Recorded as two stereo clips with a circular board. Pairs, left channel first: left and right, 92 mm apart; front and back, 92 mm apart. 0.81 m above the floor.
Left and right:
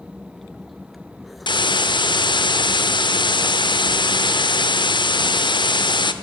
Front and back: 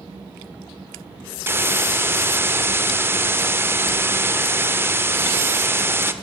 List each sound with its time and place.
1.5 s a hiss: 115° left, 0.8 m